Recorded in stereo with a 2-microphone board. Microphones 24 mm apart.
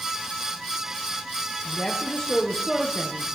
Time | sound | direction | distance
1.6 | a woman speaking | 25° left (ahead or behind) | 3.5 m